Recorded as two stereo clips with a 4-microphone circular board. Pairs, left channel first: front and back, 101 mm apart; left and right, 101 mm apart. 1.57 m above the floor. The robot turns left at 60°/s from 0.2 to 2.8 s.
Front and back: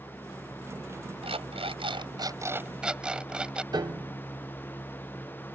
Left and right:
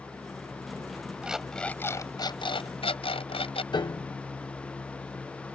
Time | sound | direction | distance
1.2 | an alarm clock | 165° right | ?
3.7 | a piano | 135° left | ?